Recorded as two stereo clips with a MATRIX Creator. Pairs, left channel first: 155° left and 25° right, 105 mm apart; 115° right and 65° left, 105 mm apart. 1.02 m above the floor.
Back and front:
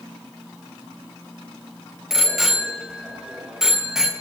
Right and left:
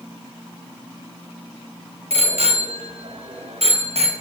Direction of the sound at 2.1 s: 65° left.